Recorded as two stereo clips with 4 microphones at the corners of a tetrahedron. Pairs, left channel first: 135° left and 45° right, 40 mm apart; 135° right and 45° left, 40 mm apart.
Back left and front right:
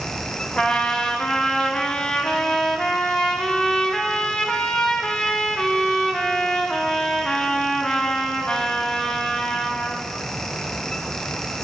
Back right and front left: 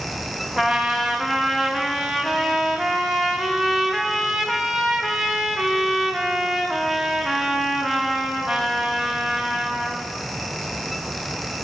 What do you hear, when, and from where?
0.6 s a trumpet: 120° left, 1.2 m